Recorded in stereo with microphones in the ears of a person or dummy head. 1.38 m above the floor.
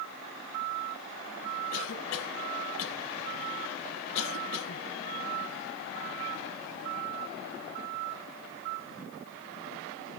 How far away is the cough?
About 1.2 m.